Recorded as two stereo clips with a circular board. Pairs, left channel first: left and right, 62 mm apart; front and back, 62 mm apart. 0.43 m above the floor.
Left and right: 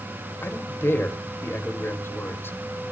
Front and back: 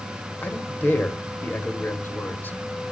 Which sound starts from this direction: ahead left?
A man speaking, at 0.4 s.